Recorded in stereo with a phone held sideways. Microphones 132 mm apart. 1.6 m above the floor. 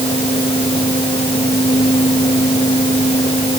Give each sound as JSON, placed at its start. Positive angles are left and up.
{"t": 0.0, "sound": "a fan", "side_deg": 40}